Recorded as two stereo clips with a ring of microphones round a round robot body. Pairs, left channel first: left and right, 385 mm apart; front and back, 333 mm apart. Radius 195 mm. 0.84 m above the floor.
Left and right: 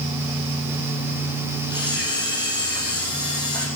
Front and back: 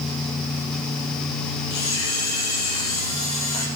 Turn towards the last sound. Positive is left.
turn(degrees=10)